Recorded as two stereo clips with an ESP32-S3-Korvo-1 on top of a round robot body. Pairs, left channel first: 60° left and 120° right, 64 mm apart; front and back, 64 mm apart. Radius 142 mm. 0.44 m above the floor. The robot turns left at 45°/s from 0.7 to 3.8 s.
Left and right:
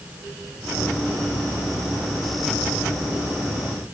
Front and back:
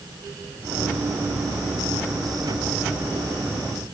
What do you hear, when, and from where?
Only background noise.